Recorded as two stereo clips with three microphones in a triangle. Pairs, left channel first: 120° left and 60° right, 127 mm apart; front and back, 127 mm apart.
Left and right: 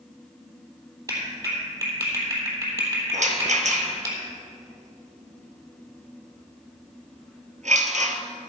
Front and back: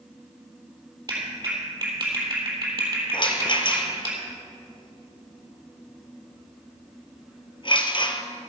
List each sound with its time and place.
1.1 s a clap: 120° right, 3.5 m
3.1 s a rattle: 45° right, 1.3 m